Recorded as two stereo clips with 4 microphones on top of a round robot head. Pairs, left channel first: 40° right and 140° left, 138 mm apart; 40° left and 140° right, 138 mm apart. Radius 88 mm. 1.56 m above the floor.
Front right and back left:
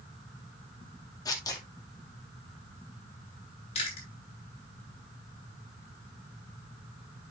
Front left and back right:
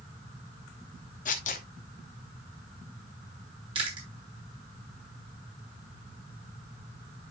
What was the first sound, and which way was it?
Tearing paper, 20° left.